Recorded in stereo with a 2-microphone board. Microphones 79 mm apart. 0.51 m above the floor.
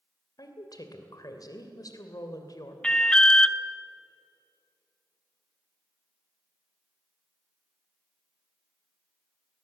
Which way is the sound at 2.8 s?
10° left (ahead or behind).